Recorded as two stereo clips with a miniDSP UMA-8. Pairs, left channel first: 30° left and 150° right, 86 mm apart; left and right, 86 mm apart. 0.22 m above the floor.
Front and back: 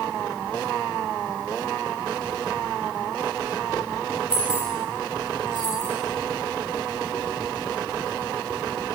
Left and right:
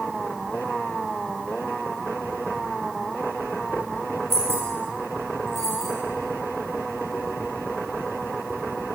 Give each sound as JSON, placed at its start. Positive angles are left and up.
{"t": 4.3, "sound": "keys jangling", "azimuth_deg": -150, "distance_m": 4.0}